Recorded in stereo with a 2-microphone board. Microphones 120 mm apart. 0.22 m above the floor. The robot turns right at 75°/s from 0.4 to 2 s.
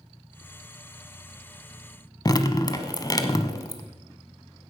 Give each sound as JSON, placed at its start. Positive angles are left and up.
{"t": 2.2, "sound": "dripping", "side_deg": 35, "distance_m": 1.0}